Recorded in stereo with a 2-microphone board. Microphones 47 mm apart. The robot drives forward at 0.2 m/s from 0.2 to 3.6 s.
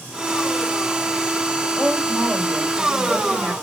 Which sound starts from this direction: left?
A woman speaking, at 1.8 s.